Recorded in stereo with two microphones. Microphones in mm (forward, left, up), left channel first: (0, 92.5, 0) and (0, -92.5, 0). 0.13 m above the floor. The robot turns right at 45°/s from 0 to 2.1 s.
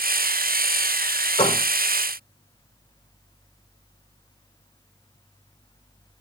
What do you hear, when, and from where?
1.4 s a door slam: 30° left (ahead or behind), 5 m; by 1.6 s 40° left (ahead or behind), 5 m